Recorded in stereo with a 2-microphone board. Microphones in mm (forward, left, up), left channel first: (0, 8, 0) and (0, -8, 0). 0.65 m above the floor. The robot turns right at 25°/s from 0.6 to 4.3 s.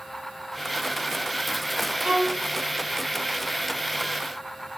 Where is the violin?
85° right, 4.5 m; by 2.4 s 80° right, 4.5 m.